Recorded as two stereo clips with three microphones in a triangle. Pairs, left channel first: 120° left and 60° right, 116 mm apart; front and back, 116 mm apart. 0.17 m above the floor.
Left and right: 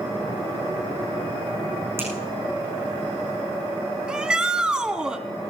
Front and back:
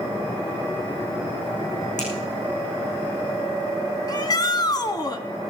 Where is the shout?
20° left, 1.4 m.